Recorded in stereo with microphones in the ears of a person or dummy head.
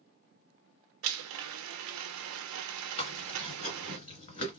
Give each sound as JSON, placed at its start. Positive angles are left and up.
{"t": 1.0, "sound": "a blender", "side_deg": -70, "distance_m": 0.5}
{"t": 3.0, "sound": "chewing", "side_deg": 35, "distance_m": 2.0}